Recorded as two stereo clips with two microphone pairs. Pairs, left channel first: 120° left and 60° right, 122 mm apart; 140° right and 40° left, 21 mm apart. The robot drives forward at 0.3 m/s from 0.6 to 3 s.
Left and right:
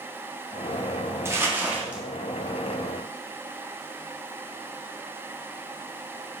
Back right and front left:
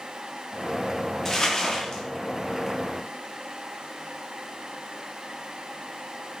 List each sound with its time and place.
1.2 s crumpling: 105° right, 0.6 m; by 2.0 s 135° right, 0.6 m